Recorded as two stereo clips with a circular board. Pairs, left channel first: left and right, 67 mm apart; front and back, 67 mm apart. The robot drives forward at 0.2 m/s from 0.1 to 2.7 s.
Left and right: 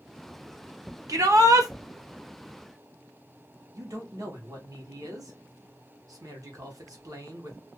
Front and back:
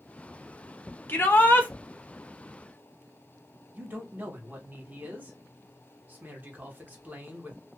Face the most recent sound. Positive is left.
turn(degrees=-115)